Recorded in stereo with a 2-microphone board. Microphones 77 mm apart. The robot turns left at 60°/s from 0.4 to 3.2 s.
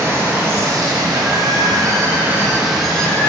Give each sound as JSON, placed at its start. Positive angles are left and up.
{"t": 0.0, "sound": "running water", "azimuth_deg": -35, "distance_m": 0.8}